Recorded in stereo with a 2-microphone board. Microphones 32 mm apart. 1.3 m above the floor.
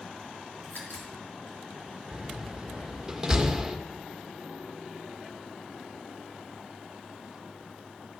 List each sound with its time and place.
0.6 s a crack: 60° left (ahead or behind), 4 m
2.1 s a door slam: 15° right (ahead or behind), 1.3 m